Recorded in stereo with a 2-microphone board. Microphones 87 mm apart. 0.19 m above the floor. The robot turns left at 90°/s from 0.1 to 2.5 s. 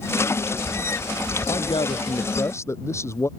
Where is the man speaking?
125° left; by 3.3 s 35° left.